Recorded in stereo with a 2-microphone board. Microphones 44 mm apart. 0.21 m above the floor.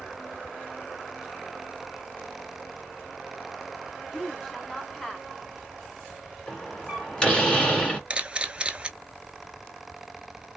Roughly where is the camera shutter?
Right.